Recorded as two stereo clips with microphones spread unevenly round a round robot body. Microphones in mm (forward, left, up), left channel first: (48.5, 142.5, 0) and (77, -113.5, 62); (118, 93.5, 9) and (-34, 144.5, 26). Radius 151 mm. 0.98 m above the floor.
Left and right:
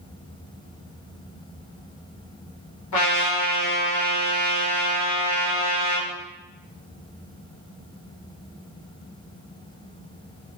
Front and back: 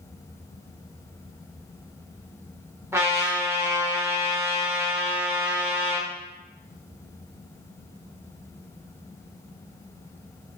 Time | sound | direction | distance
2.9 | a trumpet | 90° left | 2.5 m